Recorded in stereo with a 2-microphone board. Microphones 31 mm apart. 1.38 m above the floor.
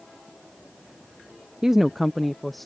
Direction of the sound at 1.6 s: 20° right (ahead or behind).